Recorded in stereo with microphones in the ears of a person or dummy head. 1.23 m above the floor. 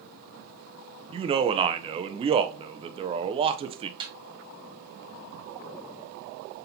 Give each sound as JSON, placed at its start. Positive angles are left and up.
{"t": 1.1, "sound": "a man speaking", "side_deg": -30, "distance_m": 0.5}
{"t": 4.0, "sound": "a snare drum", "side_deg": -25, "distance_m": 1.6}